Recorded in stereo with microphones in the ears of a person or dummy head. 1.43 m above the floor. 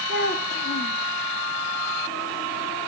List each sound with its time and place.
0.1 s a child speaking: 50° left (ahead or behind), 1.2 m